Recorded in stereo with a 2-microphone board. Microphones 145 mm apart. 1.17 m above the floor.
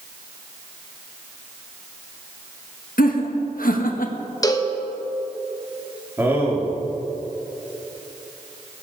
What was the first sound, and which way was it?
Laughter, 80° left.